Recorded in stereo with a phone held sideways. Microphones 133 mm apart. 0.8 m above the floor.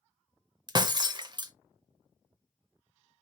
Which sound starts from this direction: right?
Breaking glass, at 0.7 s.